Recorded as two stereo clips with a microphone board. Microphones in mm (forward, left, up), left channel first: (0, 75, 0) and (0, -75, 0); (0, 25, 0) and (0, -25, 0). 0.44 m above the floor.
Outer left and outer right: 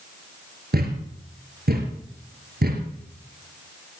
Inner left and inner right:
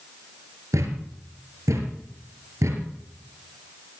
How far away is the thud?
About 3.5 m.